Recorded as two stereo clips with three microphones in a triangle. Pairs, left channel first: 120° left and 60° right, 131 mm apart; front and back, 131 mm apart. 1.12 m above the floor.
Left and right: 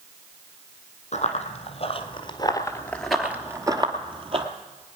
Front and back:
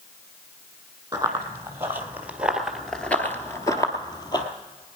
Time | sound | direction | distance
1.1 | running footsteps | 115° left | 2 m